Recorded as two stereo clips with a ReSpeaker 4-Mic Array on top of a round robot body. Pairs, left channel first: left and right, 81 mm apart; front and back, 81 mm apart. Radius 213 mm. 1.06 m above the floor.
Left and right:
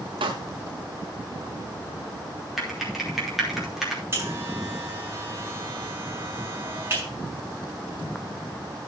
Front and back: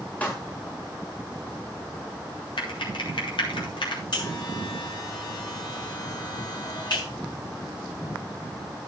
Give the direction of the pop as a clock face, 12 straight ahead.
2 o'clock.